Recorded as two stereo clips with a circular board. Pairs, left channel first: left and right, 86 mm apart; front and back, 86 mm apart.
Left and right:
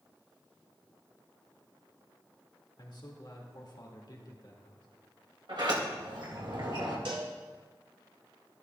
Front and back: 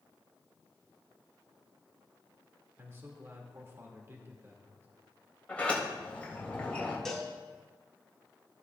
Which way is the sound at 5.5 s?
70° right.